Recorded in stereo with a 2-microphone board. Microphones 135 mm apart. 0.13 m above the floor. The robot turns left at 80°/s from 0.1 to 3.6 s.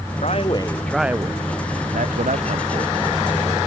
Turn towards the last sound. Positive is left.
turn(degrees=150)